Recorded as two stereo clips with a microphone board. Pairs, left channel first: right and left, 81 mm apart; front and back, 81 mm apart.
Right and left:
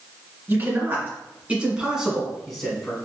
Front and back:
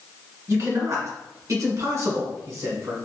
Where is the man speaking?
145° left, 2.0 m; by 2.9 s 165° right, 1.4 m.